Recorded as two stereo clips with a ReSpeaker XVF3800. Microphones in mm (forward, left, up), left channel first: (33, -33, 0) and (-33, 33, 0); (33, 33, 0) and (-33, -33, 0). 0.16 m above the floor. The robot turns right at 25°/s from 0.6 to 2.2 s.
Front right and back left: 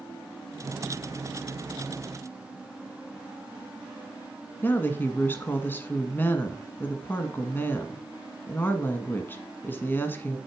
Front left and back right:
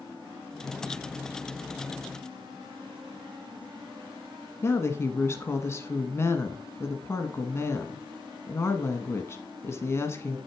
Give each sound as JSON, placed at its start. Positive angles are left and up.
{"t": 4.6, "sound": "a woman speaking", "azimuth_deg": 5, "distance_m": 1.2}